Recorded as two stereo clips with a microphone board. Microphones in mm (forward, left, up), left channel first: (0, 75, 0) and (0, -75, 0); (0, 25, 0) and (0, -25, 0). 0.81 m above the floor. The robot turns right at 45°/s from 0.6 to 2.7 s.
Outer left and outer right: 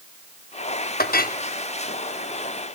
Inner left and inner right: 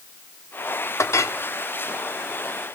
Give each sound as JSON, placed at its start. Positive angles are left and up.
{"t": 1.0, "sound": "a clink", "side_deg": 90, "distance_m": 0.8}